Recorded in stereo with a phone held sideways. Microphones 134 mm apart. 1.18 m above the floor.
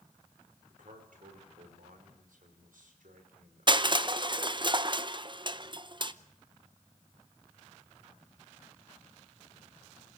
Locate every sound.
0.7 s a man speaking: 80° right, 4.5 m
3.7 s crushing: 35° right (ahead or behind), 0.7 m